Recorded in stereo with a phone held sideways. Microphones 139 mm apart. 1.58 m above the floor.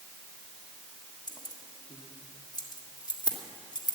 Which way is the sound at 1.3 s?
30° left (ahead or behind).